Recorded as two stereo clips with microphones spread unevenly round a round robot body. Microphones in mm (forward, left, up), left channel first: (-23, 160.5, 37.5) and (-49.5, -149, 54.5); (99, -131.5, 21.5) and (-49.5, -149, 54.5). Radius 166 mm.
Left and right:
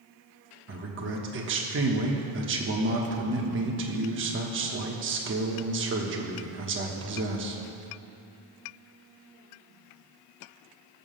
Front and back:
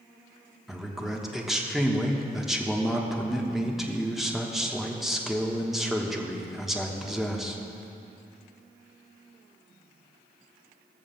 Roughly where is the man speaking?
Right.